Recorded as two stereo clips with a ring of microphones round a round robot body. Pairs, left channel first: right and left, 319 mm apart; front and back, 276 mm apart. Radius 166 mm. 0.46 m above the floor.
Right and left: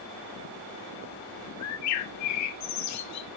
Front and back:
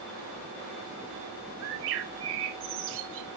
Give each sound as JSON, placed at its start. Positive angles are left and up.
{"t": 1.6, "sound": "a bird", "azimuth_deg": -130, "distance_m": 0.9}